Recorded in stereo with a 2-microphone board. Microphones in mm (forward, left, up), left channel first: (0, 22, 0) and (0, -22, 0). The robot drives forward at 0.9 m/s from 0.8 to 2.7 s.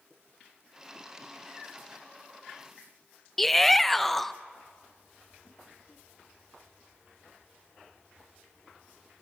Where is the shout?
5° left (ahead or behind), 0.6 m.